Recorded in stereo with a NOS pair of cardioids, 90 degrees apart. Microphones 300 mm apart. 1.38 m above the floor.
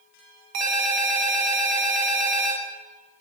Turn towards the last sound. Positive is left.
turn(degrees=-70)